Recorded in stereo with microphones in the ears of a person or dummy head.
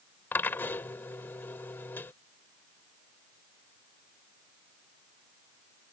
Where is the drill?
Centre (ahead or behind).